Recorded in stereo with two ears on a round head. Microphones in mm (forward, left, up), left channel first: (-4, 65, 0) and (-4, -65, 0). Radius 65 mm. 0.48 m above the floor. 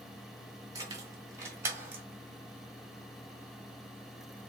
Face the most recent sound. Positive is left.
turn(degrees=-15)  # may be behind; listen again after turning